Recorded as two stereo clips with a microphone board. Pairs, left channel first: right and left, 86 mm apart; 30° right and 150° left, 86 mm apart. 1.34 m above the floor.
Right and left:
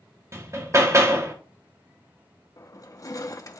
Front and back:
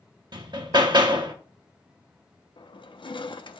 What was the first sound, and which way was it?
Hammering, 140° left.